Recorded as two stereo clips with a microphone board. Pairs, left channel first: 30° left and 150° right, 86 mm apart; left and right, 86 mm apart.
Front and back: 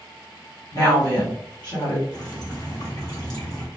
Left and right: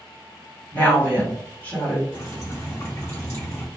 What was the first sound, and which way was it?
A woman speaking, 30° left.